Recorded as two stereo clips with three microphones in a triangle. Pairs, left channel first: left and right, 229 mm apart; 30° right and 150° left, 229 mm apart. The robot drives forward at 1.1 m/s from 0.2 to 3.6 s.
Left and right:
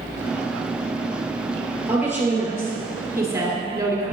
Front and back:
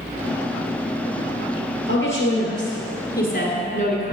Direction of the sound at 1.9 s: 10° right.